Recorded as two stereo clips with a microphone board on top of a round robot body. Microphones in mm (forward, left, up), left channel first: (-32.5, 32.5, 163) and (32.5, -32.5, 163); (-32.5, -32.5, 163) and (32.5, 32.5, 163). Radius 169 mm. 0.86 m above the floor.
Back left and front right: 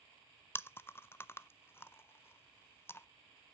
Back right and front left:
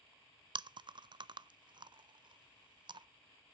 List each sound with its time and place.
0.6 s chewing: 75° left, 0.5 m